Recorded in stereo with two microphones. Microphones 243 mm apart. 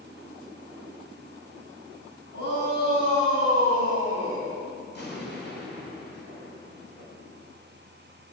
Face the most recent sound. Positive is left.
turn(degrees=45)  # may be behind; listen again after turning